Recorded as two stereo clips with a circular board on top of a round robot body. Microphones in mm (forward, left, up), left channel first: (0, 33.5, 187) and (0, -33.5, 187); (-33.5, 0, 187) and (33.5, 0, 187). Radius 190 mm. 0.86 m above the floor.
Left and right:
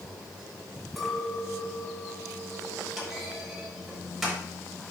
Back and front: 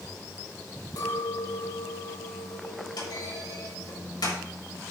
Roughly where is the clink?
Behind.